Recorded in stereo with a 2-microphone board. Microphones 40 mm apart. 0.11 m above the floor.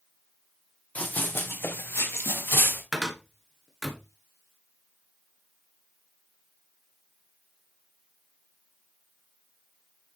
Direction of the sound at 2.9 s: Centre (ahead or behind).